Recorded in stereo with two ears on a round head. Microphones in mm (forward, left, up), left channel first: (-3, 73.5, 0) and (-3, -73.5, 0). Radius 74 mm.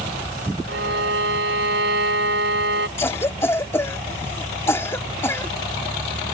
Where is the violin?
75° right (ahead or behind).